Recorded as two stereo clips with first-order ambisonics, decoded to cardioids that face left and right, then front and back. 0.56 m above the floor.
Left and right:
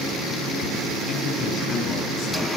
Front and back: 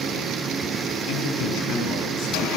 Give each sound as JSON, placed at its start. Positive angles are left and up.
{"t": 1.1, "sound": "a man speaking", "azimuth_deg": 30, "distance_m": 5.5}